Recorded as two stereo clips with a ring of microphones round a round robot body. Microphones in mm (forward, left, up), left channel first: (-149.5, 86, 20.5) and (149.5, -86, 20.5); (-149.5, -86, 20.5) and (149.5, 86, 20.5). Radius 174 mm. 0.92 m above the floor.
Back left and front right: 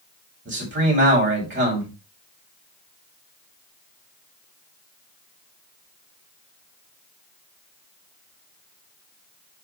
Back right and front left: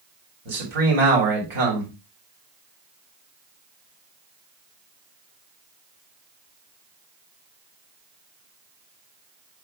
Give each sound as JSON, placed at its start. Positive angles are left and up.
{"t": 0.5, "sound": "a man speaking", "azimuth_deg": 30, "distance_m": 4.0}